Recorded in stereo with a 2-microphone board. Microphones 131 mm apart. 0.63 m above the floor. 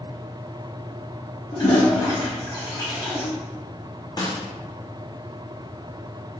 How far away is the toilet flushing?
About 1.3 m.